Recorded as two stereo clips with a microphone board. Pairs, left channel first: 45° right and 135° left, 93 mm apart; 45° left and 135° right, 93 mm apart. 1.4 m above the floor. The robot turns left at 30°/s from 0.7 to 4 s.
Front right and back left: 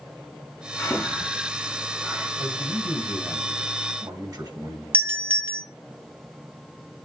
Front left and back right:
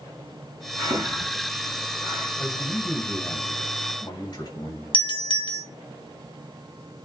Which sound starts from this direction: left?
A doorbell, at 4.9 s.